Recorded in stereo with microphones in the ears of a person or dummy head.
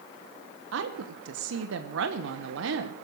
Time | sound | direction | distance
0.7 | a woman speaking | 60° right (ahead or behind) | 1.0 m